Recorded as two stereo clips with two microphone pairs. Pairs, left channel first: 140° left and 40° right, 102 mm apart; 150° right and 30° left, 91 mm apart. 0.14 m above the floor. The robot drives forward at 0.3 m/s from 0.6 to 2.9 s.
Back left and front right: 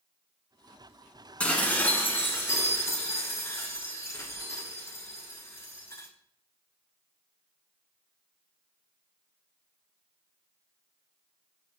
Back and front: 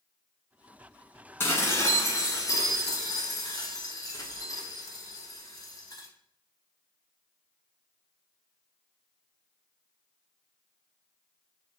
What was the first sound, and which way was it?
Dishes clattering, 160° right.